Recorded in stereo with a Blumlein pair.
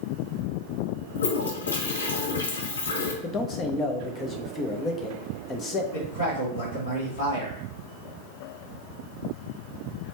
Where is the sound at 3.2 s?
20° left, 0.9 m.